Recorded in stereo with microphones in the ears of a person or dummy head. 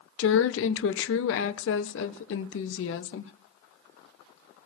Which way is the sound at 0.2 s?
65° left (ahead or behind).